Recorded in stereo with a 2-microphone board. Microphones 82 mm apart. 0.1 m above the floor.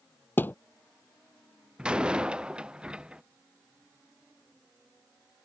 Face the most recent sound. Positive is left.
turn(degrees=-10)  # may be behind; listen again after turning